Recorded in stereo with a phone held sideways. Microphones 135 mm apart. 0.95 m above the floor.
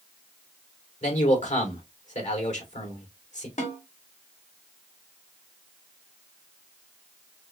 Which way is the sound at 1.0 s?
70° left (ahead or behind).